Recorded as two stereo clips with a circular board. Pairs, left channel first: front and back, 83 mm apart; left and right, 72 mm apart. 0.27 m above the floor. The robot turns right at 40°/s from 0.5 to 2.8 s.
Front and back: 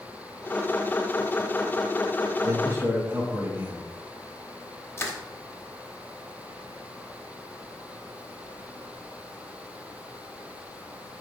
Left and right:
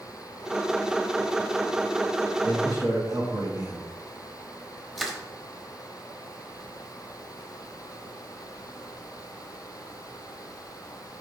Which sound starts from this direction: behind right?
A man speaking, at 2.4 s.